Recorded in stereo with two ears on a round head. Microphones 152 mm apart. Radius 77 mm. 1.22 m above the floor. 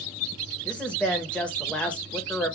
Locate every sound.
0.7 s a woman speaking: 5° left (ahead or behind), 0.9 m